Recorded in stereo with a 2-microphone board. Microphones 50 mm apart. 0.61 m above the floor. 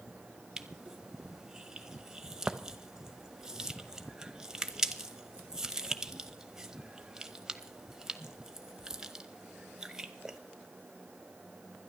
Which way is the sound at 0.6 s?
15° right (ahead or behind).